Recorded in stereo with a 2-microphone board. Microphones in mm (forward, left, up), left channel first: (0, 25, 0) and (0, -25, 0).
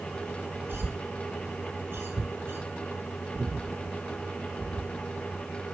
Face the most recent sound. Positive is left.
turn(degrees=-45)  # may be behind; listen again after turning